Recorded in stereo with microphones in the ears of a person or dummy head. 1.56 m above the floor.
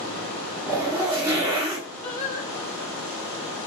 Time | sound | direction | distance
0.7 | a zipper | 15° right (ahead or behind) | 1.3 m
2.0 | singing | 20° left (ahead or behind) | 0.9 m